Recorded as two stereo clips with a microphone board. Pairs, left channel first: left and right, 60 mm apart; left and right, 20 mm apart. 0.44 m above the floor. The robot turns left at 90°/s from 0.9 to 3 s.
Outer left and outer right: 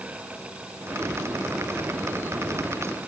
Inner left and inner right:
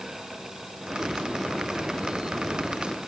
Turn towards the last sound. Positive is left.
No sound to turn to.